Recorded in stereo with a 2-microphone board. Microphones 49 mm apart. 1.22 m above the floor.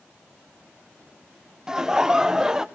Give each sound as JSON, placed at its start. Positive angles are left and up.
{"t": 1.7, "sound": "laughter", "side_deg": -15, "distance_m": 0.8}